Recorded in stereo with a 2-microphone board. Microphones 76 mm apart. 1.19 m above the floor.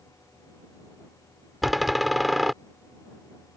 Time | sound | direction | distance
1.6 | a door slam | centre (ahead or behind) | ?